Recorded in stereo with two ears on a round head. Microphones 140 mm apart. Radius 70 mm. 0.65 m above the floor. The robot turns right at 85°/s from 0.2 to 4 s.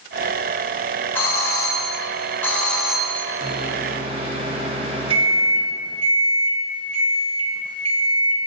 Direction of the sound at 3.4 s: 100° right.